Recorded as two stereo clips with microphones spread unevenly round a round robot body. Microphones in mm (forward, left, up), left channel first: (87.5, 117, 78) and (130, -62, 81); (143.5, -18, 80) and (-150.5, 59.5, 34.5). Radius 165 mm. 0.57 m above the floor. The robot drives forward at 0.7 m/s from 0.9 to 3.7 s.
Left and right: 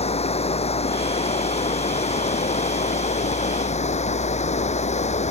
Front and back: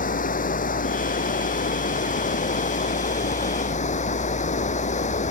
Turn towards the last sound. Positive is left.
turn(degrees=50)